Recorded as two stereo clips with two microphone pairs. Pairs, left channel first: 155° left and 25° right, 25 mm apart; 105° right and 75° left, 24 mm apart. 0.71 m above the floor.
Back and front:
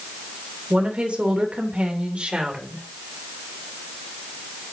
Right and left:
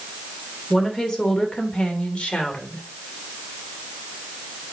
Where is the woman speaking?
35° right, 3 m; by 2.8 s 65° right, 3 m.